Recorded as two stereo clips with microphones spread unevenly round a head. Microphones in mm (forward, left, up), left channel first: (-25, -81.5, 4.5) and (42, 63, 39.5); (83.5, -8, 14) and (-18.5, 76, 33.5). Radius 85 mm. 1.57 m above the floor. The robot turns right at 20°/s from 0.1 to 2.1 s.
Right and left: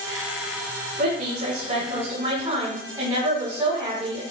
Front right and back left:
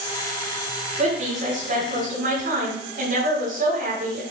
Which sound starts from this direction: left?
A woman speaking, at 1.0 s.